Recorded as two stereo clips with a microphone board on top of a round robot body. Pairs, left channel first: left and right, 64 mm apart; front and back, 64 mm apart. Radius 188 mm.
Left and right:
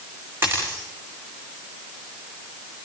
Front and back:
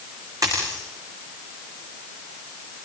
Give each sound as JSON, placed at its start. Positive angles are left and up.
{"t": 0.4, "sound": "a dropped coin", "azimuth_deg": -145, "distance_m": 9.5}